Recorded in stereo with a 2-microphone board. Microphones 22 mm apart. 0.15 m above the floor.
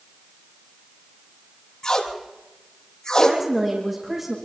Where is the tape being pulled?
40° left (ahead or behind), 3.5 m.